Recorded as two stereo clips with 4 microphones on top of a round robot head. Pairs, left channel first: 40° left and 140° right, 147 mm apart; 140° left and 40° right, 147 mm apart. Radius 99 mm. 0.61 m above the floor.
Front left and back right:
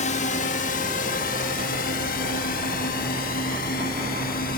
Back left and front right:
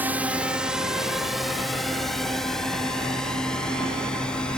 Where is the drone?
35° left; by 4.6 s 55° left.